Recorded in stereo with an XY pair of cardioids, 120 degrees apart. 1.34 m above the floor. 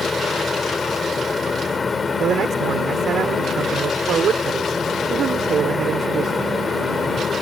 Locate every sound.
0.0 s a fan: 20° left
2.2 s a man speaking: 50° right